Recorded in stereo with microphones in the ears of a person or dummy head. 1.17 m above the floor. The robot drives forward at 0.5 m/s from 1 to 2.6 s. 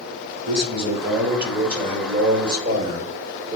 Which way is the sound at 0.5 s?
55° right (ahead or behind).